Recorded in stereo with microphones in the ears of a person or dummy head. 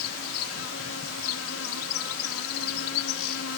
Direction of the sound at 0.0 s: 75° left (ahead or behind).